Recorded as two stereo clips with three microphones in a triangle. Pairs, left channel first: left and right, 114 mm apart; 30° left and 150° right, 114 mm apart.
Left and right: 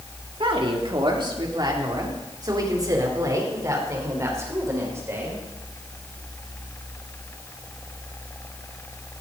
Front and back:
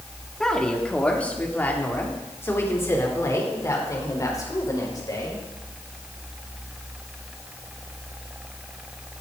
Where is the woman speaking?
55° right, 3 m; by 5.4 s 25° right, 5 m.